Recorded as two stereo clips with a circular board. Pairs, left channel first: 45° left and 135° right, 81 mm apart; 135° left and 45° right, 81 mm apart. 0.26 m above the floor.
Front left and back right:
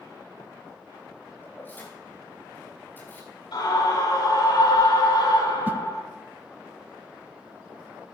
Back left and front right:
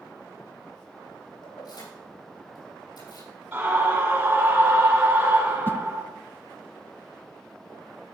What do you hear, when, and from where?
1.4 s keys jangling: 110° left, 6 m
3.5 s a scream: 25° left, 5.5 m
5.7 s a whoosh: straight behind, 0.5 m